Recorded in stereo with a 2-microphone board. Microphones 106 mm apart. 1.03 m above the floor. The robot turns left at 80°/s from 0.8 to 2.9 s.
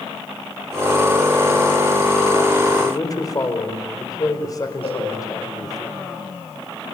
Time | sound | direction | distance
2.8 | a man speaking | 45° left (ahead or behind) | 4.5 m
4.8 | a cowbell | 70° left (ahead or behind) | 6 m